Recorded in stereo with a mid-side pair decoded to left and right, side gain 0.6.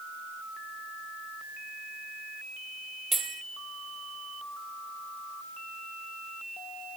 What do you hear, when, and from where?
3.1 s a bell: 25° right, 2 m